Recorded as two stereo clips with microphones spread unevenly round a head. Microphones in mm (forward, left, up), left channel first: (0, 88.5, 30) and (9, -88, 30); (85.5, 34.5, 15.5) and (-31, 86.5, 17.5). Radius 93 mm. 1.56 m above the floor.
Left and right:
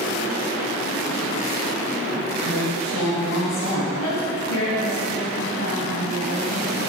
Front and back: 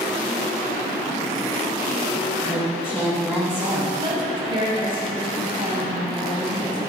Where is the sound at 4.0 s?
100° left, 3 m.